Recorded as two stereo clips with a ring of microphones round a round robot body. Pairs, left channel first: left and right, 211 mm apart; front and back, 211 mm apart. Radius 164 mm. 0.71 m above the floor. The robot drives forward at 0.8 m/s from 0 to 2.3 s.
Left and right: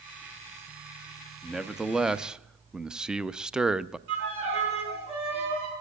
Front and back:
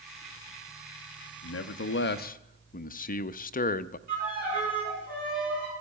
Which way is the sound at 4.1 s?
120° right.